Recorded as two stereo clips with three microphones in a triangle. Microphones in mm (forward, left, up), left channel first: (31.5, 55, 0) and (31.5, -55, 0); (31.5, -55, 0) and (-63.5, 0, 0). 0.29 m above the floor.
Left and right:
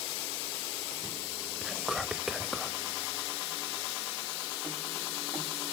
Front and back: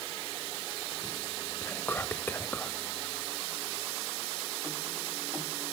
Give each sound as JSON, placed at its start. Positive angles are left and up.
{"t": 1.6, "sound": "whispering", "azimuth_deg": -15, "distance_m": 0.9}